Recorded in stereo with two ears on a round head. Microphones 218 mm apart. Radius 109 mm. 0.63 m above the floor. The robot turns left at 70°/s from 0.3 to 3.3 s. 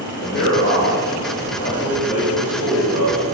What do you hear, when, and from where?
0.2 s a man speaking: 45° left (ahead or behind), 3 m; by 3.3 s 70° right (ahead or behind), 3 m